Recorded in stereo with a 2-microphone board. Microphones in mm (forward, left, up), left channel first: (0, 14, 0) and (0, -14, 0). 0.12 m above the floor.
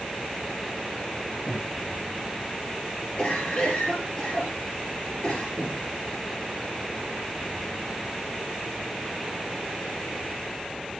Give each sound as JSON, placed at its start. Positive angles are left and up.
{"t": 1.5, "sound": "breathing", "side_deg": 75, "distance_m": 4.5}
{"t": 3.2, "sound": "a cough", "side_deg": 30, "distance_m": 2.5}
{"t": 5.6, "sound": "breathing", "side_deg": 25, "distance_m": 4.5}